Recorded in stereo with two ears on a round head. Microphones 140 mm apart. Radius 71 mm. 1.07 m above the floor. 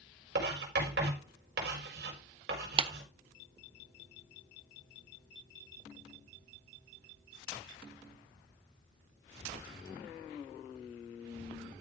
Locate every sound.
0.3 s writing: 80° right, 4.5 m
2.8 s a clap: 35° right (ahead or behind), 0.6 m